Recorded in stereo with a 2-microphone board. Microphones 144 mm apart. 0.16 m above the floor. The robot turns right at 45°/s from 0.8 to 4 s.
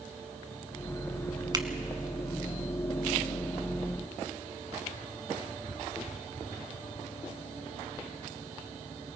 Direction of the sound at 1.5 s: 30° right (ahead or behind).